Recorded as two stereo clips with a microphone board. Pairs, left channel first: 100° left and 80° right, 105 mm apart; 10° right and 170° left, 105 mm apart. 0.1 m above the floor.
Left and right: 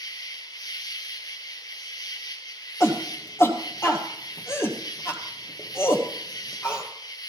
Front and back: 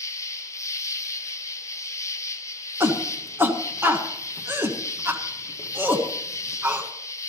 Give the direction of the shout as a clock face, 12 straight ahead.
8 o'clock.